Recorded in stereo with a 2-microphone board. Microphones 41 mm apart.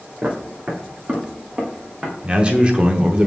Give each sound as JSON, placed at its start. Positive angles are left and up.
{"t": 0.2, "sound": "footsteps", "side_deg": -40, "distance_m": 3.0}
{"t": 2.2, "sound": "a man speaking", "side_deg": -25, "distance_m": 0.9}